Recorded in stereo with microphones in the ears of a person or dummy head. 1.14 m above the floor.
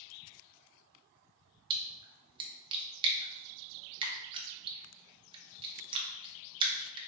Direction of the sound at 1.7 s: 20° right (ahead or behind).